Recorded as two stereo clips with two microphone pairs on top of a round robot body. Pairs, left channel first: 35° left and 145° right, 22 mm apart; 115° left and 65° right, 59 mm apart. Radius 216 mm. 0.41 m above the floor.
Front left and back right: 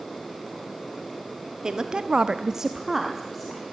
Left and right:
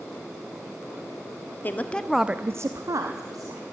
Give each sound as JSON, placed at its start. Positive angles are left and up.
{"t": 1.6, "sound": "a woman speaking", "azimuth_deg": 165, "distance_m": 1.3}